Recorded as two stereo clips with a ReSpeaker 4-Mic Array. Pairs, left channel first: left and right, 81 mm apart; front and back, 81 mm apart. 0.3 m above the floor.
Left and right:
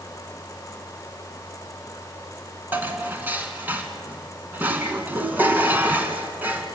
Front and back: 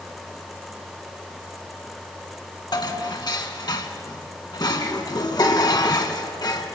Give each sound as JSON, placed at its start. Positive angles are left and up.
{"t": 2.7, "sound": "dishes clattering", "azimuth_deg": -25, "distance_m": 2.0}